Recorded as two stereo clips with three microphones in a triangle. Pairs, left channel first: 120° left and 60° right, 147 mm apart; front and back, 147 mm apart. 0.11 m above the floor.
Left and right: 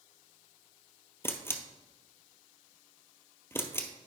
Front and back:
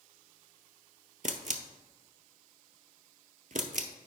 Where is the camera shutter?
170° right, 0.6 m.